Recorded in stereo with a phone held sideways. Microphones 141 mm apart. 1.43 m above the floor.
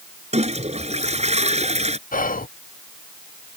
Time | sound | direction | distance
0.3 | a toilet flushing | 55° right (ahead or behind) | ?
2.1 | whispering | 85° left | ?